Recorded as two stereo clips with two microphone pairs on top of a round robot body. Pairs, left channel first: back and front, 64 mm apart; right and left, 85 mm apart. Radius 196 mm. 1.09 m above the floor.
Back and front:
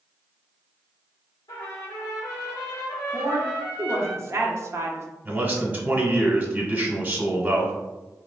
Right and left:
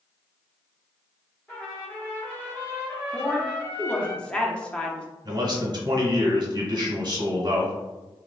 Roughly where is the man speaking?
Ahead left.